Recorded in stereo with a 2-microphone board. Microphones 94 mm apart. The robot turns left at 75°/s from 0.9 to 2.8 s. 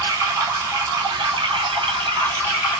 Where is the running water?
35° right, 1.7 m; by 2.8 s 175° right, 1.7 m.